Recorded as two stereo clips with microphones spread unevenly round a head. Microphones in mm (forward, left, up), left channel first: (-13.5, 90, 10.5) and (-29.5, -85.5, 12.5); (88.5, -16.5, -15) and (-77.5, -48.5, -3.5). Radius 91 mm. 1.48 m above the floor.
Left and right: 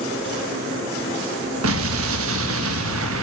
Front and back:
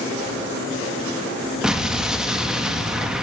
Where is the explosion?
85° right, 1.7 m.